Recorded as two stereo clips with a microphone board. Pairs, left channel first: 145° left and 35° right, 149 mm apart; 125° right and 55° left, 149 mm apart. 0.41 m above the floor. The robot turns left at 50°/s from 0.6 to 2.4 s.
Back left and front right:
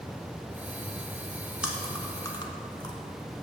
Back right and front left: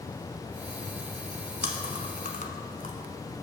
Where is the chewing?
120° right, 0.9 m; by 3.0 s 155° right, 0.9 m.